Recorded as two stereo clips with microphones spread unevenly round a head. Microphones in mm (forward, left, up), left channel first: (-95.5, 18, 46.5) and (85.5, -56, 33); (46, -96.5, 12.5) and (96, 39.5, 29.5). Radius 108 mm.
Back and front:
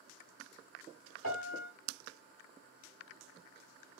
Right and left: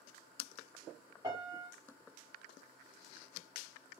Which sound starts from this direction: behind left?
A piano, at 1.2 s.